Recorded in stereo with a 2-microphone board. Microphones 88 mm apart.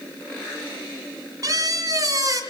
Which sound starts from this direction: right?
A squeak, at 1.4 s.